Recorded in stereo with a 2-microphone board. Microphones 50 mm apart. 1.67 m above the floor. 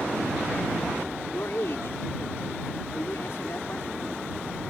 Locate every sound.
1.3 s a man speaking: 60° left (ahead or behind)